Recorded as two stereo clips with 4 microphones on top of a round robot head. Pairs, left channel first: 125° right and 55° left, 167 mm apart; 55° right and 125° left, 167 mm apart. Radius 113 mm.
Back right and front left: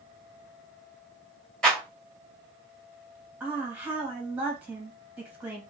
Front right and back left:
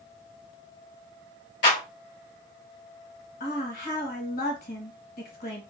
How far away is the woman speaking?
About 1.7 m.